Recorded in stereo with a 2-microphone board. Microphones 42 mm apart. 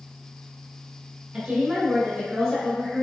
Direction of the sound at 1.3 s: 15° right (ahead or behind).